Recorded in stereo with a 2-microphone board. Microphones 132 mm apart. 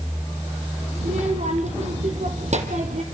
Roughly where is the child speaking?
Right.